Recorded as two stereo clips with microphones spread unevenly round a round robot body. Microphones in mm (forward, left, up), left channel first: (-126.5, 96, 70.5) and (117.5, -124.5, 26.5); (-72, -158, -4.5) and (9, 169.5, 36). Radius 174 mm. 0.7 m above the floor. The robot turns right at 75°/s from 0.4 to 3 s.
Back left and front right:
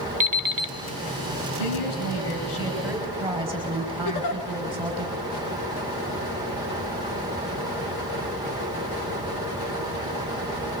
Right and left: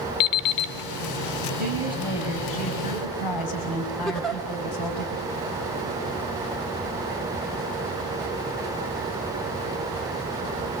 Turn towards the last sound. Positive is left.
turn(degrees=170)